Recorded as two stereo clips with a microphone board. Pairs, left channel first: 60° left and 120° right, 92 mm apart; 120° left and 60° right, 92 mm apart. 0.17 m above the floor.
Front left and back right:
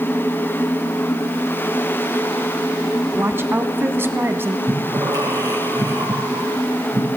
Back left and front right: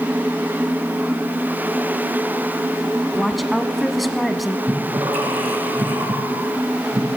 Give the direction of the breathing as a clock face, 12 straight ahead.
2 o'clock.